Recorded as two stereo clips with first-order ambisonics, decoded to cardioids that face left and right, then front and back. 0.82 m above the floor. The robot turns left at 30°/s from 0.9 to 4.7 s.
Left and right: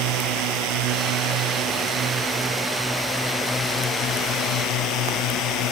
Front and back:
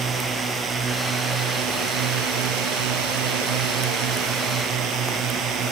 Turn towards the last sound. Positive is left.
turn(degrees=130)